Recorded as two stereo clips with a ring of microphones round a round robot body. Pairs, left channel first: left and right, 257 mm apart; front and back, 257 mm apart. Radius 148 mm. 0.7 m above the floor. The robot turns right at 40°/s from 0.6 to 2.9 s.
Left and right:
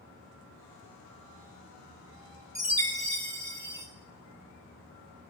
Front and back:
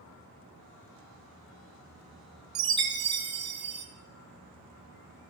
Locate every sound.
2.5 s a chime: 145° right, 1.7 m; by 3.9 s 130° right, 1.7 m